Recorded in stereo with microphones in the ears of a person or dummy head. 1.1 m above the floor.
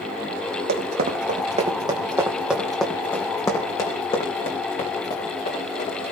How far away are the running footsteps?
About 2.5 m.